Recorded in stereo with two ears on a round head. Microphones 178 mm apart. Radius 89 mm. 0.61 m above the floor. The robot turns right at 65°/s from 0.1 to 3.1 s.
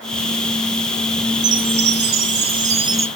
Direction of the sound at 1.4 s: 115° right.